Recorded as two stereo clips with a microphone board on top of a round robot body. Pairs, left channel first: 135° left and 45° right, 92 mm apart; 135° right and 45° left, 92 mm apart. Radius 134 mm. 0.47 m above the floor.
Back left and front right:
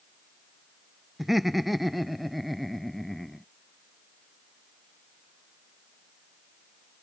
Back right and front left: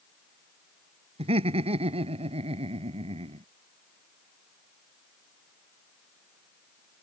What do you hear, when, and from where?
1.2 s laughter: 45° left; by 3.5 s 50° left